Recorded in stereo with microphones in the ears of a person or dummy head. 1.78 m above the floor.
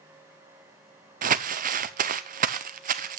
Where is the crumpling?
40° right (ahead or behind), 0.6 m.